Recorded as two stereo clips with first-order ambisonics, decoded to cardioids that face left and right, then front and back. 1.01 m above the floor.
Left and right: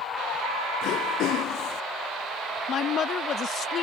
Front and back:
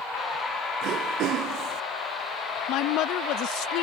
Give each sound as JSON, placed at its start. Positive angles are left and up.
{"t": 0.8, "sound": "throat clearing", "azimuth_deg": 135}
{"t": 2.7, "sound": "a woman speaking", "azimuth_deg": 30}